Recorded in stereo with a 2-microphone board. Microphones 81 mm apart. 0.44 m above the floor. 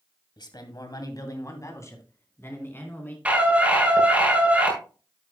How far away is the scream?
About 7 m.